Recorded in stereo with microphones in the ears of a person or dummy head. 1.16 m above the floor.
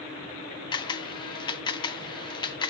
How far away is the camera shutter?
About 0.5 m.